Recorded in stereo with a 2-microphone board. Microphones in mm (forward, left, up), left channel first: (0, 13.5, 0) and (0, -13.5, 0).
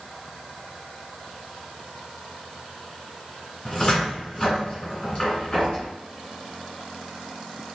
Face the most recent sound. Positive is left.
turn(degrees=35)  # may be behind; listen again after turning